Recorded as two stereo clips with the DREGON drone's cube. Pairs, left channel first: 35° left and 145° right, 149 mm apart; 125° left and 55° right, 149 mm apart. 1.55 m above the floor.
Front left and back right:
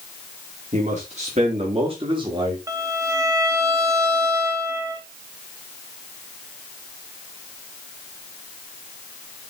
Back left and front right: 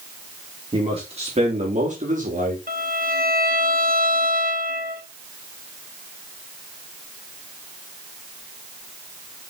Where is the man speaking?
110° right, 4 m; by 2.6 s 80° right, 2.5 m.